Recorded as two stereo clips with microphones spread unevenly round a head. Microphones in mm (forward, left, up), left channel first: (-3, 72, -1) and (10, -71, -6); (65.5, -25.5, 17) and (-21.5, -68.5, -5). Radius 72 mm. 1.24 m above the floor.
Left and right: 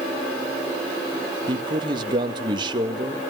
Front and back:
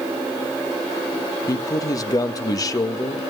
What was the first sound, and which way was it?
A man speaking, 25° right.